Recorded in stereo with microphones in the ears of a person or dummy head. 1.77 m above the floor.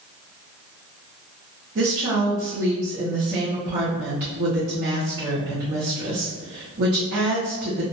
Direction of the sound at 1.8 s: 35° right (ahead or behind).